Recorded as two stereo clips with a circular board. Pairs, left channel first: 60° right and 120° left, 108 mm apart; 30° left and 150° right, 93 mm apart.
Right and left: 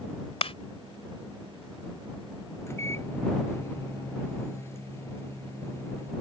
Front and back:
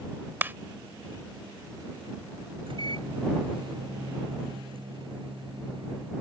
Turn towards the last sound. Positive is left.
turn(degrees=-125)